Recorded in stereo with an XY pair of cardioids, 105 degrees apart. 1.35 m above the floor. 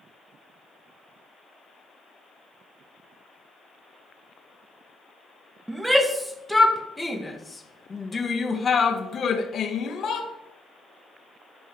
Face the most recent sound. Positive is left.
turn(degrees=60)